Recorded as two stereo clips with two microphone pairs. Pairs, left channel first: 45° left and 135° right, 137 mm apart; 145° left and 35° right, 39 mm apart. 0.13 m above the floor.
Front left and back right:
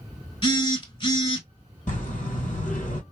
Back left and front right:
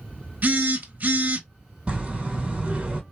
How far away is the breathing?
About 1.1 m.